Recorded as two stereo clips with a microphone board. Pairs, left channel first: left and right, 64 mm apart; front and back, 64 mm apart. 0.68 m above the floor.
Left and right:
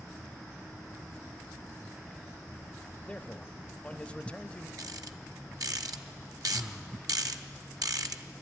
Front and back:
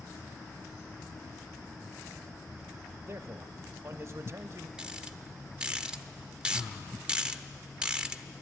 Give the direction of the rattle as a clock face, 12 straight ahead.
3 o'clock.